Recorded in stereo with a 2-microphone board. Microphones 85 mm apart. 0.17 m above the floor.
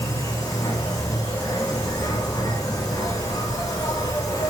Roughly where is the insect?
Left.